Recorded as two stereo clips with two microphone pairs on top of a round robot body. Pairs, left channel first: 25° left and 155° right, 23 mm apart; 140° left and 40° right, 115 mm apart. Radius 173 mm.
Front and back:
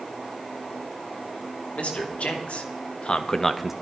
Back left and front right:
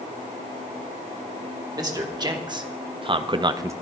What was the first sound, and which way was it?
A man speaking, 15° left.